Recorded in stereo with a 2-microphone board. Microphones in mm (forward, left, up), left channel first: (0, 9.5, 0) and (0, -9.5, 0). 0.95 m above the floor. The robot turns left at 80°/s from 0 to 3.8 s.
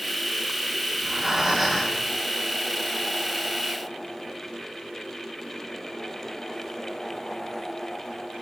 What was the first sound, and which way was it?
Breathing, 125° right.